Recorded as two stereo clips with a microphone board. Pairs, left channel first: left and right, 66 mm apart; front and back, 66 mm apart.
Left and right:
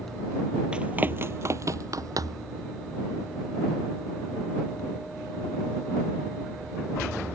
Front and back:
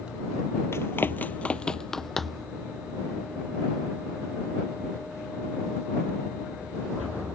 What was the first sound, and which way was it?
Running footsteps, 20° right.